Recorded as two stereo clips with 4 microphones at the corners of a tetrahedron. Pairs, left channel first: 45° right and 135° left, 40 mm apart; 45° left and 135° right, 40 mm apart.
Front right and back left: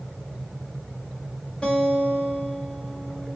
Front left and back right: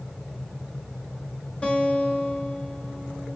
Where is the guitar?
10° left, 1.8 m.